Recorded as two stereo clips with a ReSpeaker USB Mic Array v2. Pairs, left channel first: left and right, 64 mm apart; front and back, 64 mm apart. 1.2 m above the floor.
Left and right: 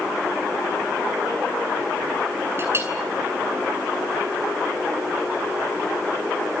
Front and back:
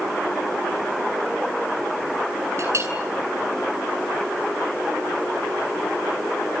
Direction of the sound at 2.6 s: 140° right.